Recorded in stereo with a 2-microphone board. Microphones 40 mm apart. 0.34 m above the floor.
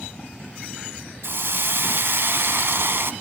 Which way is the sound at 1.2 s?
65° right (ahead or behind).